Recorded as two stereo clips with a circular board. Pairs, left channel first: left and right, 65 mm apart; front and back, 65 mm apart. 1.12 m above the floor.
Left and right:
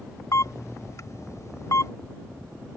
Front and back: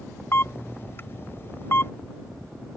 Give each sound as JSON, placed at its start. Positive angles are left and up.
{"t": 0.3, "sound": "a camera shutter", "azimuth_deg": 55}